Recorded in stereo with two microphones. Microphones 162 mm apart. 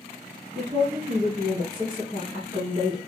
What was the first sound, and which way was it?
A woman speaking, 30° right (ahead or behind).